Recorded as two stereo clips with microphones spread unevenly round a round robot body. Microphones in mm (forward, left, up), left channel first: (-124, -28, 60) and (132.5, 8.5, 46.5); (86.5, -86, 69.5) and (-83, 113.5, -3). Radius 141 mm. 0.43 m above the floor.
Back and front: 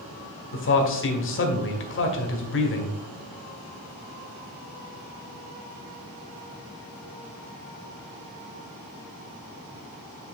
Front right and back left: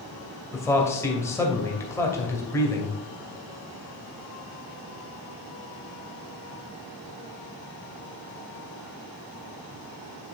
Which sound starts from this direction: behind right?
A man speaking, at 0.5 s.